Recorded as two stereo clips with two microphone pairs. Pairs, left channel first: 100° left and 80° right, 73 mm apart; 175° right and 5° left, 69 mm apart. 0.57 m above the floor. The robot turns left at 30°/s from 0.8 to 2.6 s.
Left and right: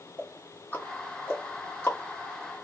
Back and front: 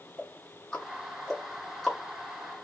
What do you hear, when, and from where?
0.2 s ticking: 135° left, 1.0 m; by 2.0 s 100° left, 1.0 m